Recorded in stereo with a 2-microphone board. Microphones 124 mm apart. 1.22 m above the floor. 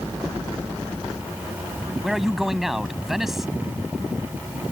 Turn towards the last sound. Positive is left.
turn(degrees=0)  # may be behind; listen again after turning